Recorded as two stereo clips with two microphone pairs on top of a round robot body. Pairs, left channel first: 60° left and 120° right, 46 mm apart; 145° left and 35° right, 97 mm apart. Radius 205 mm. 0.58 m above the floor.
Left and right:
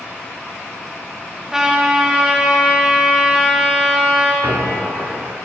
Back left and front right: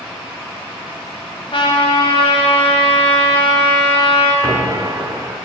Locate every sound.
1.5 s a trumpet: 160° left, 1.9 m
4.4 s a squeak: 95° right, 0.8 m